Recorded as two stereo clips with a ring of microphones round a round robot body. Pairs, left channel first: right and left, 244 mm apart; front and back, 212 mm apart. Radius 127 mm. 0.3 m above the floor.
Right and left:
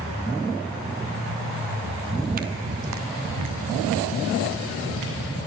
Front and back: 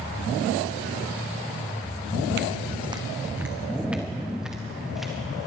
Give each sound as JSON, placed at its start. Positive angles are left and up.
{"t": 2.1, "sound": "footsteps", "azimuth_deg": 180, "distance_m": 0.6}